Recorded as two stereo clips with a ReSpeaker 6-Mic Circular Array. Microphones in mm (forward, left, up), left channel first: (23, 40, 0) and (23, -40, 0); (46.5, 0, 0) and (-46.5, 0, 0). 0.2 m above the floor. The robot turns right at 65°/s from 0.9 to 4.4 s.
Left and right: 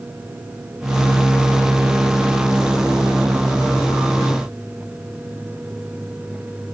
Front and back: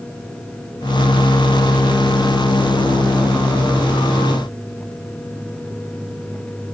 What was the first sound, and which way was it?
Only background noise.